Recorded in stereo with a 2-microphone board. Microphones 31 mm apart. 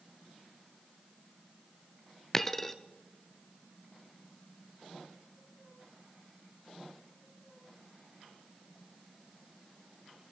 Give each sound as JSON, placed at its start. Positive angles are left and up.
{"t": 2.3, "sound": "a dropped coin", "side_deg": 10, "distance_m": 0.7}